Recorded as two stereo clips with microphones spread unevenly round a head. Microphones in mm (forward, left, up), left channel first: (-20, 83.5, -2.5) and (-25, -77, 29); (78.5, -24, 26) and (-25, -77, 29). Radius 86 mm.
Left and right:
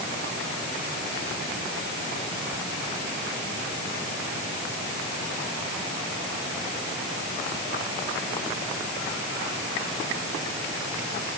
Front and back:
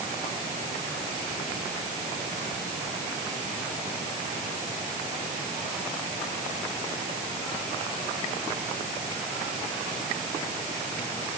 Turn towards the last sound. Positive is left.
No sound to turn to.